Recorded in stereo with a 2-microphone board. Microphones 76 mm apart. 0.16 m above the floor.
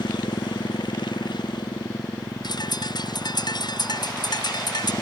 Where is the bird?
70° left (ahead or behind).